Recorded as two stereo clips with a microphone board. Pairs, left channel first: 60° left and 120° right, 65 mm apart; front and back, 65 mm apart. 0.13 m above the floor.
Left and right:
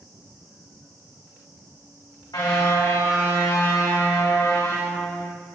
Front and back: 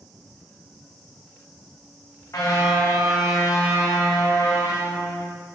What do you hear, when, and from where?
2.3 s a car horn: 45° left, 6 m; by 5.3 s 20° left, 6 m